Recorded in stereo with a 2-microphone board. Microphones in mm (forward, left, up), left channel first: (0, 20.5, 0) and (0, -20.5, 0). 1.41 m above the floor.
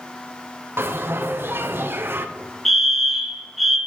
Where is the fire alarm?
Centre (ahead or behind), 1.3 m.